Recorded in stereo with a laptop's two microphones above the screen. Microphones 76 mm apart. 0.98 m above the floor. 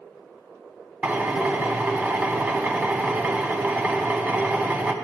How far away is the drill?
About 1.0 m.